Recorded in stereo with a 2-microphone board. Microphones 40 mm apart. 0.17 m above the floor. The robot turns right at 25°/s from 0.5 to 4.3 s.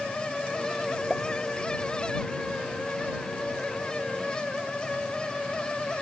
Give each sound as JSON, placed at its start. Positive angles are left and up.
{"t": 1.1, "sound": "a pop", "side_deg": -5}